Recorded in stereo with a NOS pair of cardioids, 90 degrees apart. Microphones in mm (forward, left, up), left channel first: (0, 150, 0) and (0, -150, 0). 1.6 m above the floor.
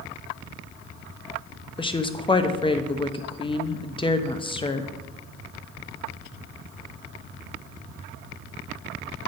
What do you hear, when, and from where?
1.8 s a woman speaking: 15° left, 0.9 m